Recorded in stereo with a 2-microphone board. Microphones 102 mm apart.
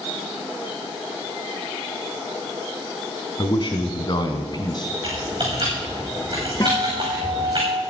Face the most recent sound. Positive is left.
turn(degrees=35)  # may be behind; listen again after turning